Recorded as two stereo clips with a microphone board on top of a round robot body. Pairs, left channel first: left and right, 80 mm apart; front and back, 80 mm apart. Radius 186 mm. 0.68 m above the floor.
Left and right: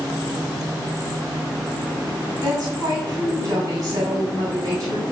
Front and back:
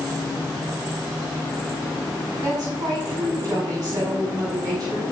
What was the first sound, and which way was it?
A woman speaking, 135° right.